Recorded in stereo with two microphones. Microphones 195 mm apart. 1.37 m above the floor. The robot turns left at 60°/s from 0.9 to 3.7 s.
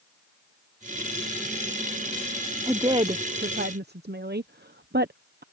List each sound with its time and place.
2.7 s a woman speaking: 10° right (ahead or behind); by 5.4 s 60° right (ahead or behind)